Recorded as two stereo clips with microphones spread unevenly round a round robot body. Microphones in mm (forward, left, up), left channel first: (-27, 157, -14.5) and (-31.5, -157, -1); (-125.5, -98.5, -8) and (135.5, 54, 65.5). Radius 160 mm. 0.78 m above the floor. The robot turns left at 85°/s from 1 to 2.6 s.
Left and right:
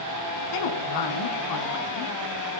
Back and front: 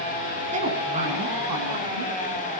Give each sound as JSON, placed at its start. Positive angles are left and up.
{"t": 0.5, "sound": "a woman speaking", "azimuth_deg": 100, "distance_m": 6.5}